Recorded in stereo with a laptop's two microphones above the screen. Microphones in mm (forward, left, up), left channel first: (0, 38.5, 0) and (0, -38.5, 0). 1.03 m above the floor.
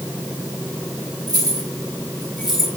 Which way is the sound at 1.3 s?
55° right (ahead or behind).